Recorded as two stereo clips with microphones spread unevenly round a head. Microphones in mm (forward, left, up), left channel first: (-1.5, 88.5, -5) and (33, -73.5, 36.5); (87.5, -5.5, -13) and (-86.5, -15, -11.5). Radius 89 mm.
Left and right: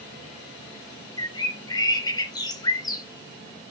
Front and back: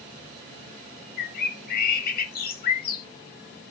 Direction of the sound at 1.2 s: 25° left.